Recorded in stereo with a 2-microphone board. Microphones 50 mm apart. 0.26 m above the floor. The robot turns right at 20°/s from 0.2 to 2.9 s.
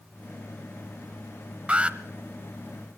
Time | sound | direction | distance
1.7 | an alarm | 25° right (ahead or behind) | 0.8 m